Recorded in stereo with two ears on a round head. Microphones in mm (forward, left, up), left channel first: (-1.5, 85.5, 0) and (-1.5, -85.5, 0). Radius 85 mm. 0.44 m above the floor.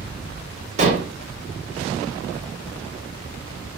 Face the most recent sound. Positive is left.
turn(degrees=-35)  # may be behind; listen again after turning